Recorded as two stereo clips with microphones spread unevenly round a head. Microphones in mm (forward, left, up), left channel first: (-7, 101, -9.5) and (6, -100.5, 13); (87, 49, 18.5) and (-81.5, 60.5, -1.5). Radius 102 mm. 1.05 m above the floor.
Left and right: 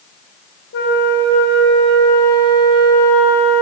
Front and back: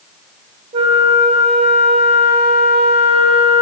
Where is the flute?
125° left, 0.6 m.